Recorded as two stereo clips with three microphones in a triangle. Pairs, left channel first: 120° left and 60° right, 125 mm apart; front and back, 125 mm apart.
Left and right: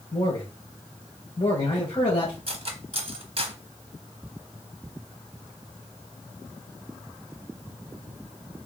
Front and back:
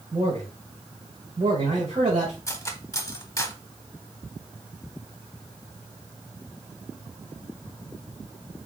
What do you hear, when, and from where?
0.1 s a man speaking: 150° left, 1.8 m
2.5 s cutlery clinking: 60° right, 0.8 m